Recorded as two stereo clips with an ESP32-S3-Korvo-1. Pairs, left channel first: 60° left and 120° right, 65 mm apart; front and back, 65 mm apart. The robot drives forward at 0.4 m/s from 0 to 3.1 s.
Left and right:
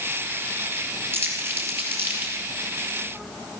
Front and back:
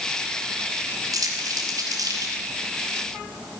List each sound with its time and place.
1.1 s crumpling: 170° right, 2.5 m; by 2.3 s 175° right, 3 m